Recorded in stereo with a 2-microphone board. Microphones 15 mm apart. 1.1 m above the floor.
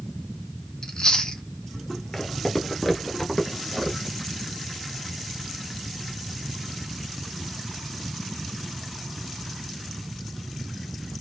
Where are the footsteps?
30° left (ahead or behind), 1.2 m; by 4.2 s centre (ahead or behind), 1.5 m.